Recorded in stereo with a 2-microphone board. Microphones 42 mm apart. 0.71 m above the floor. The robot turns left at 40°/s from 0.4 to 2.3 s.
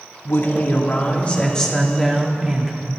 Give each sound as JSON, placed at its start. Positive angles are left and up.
{"t": 0.2, "sound": "a woman speaking", "azimuth_deg": 65, "distance_m": 1.7}